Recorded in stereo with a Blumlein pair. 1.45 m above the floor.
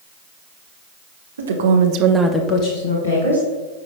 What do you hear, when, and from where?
1.4 s a woman speaking: 70° right, 1.4 m; by 3.5 s 65° left, 2 m